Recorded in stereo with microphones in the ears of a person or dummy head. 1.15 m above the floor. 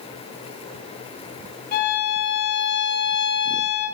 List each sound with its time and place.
1.7 s a violin: 55° left (ahead or behind), 4 m